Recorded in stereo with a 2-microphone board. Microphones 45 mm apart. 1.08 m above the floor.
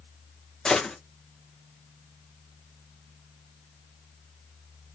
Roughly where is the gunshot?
Centre.